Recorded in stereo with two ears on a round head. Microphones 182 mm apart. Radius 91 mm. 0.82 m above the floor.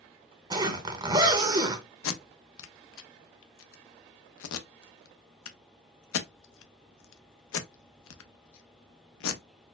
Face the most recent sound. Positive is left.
turn(degrees=70)  # may be behind; listen again after turning